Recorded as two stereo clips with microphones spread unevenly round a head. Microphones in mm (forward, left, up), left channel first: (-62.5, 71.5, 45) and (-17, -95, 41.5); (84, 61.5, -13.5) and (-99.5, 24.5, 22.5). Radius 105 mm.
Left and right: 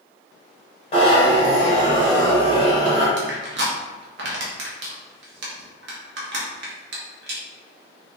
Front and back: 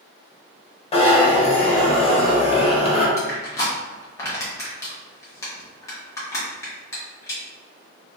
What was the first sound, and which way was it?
A zipper, 65° left.